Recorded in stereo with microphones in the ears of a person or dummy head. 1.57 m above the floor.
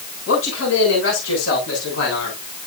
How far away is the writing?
I don't hear writing.